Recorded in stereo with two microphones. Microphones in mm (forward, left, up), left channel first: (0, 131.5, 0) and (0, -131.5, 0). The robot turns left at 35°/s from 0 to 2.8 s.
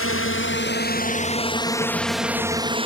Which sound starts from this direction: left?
A drone, at 0.0 s.